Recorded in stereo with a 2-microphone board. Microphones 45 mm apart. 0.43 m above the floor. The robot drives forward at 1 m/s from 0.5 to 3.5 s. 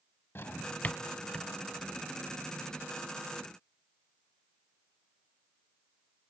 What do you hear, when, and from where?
0.3 s a drawer: 55° left (ahead or behind), 0.6 m; by 1.5 s 20° left (ahead or behind), 1.4 m